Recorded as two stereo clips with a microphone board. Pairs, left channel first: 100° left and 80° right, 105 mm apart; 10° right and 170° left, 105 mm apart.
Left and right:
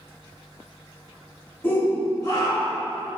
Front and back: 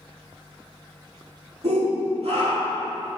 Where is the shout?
170° left, 2.5 m; by 2.9 s 155° left, 3 m.